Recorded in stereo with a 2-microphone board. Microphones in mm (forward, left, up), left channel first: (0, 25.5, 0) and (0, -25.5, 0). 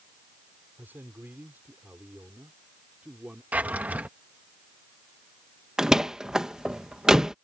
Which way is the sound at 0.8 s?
40° right (ahead or behind).